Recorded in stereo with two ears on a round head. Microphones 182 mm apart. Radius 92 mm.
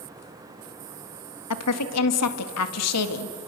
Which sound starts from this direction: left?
A woman speaking, at 1.5 s.